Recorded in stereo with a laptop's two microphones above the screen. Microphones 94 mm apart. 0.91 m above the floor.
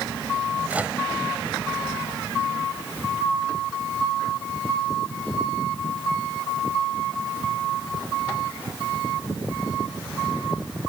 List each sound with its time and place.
0.7 s a microwave: 15° right (ahead or behind)